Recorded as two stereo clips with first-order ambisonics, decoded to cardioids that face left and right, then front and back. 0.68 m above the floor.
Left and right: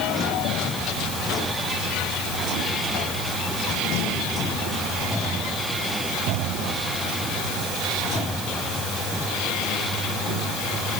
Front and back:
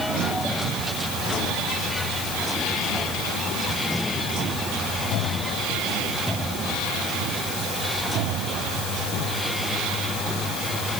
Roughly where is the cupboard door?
No cupboard door in this recording.